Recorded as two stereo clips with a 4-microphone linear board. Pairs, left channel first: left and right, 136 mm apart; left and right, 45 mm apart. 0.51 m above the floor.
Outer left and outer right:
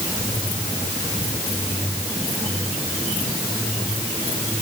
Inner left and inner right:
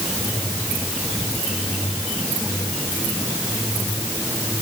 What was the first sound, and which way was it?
Only background noise.